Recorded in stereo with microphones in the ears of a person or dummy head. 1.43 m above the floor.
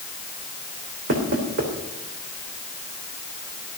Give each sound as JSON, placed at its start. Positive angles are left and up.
{"t": 1.1, "sound": "knocking", "side_deg": -50, "distance_m": 3.0}